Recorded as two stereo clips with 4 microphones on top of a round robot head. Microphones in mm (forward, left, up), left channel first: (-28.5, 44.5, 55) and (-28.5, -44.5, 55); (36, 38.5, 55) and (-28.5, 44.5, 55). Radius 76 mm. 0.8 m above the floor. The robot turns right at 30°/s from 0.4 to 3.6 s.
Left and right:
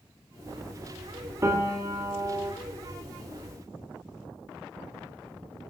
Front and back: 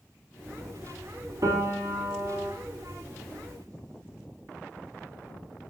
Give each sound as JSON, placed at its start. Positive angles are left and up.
{"t": 1.4, "sound": "a piano", "azimuth_deg": -145, "distance_m": 2.5}